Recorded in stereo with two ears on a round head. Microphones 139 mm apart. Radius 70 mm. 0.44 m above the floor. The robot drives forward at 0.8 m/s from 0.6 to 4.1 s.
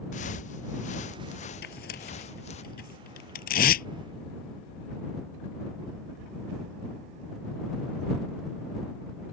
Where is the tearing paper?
70° left (ahead or behind); by 3.9 s 65° left (ahead or behind).